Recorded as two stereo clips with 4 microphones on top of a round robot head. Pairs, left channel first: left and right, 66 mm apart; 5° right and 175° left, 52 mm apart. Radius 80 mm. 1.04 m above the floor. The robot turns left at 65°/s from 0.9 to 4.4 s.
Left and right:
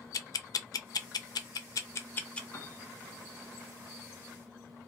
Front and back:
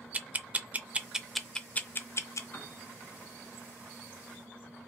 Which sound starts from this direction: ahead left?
A piano, at 2.5 s.